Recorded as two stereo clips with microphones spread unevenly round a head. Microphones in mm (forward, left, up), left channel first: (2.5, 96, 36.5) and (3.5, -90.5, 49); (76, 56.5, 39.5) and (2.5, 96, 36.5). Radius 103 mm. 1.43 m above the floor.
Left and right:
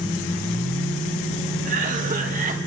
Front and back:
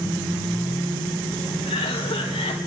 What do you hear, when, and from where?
1.6 s a cough: 40° right, 2.5 m